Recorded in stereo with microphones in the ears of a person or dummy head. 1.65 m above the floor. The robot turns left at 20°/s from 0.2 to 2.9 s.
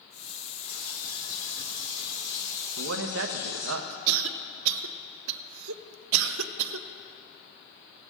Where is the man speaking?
80° right, 0.8 m.